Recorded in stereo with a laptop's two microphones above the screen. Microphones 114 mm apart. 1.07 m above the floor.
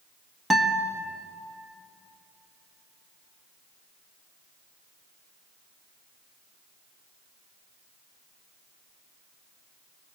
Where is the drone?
No drone in this recording.